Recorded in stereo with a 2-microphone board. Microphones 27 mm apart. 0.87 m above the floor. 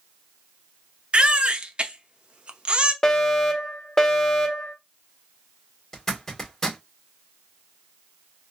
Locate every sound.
1.1 s a baby crying: 45° right (ahead or behind), 0.6 m
3.0 s a fire alarm: 20° left (ahead or behind), 1.3 m
5.9 s a zipper: 20° left (ahead or behind), 2.0 m